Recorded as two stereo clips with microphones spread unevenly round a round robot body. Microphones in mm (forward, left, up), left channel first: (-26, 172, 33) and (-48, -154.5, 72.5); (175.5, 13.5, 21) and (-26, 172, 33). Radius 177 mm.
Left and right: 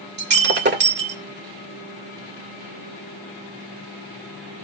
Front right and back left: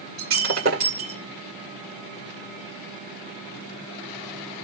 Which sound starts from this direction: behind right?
Breaking glass, at 0.2 s.